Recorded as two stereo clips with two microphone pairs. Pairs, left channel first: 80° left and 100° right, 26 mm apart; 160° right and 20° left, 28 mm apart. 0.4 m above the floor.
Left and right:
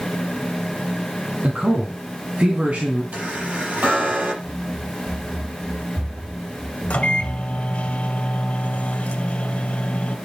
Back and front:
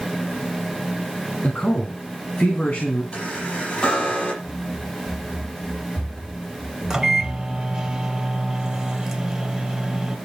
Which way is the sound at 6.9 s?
85° left.